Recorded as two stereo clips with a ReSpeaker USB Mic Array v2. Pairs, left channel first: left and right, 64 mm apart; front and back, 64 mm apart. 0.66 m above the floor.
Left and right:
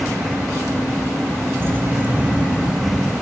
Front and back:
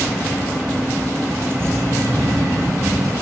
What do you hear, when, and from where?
1.6 s keys jangling: 140° right, 1.4 m; by 3.1 s 175° right, 2.5 m